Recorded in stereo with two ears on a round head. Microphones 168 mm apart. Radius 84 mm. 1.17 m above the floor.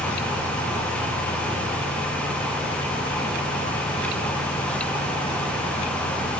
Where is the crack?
I don't hear a crack.